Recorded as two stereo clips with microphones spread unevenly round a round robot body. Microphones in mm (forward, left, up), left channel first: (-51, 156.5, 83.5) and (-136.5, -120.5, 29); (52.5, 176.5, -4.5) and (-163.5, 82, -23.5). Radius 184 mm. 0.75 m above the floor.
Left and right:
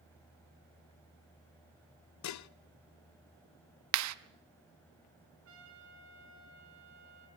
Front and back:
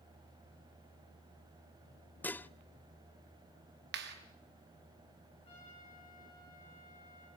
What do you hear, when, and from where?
2.2 s dishes clattering: 110° left, 0.5 m
3.9 s a clap: 100° right, 0.6 m
5.5 s a trumpet: 50° right, 3 m